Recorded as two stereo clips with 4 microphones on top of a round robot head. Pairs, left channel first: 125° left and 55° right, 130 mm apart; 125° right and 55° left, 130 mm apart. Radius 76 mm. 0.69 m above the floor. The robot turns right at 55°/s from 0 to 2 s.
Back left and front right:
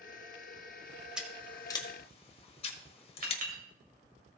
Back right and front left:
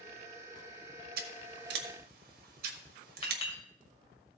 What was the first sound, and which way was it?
Scissors, 30° left.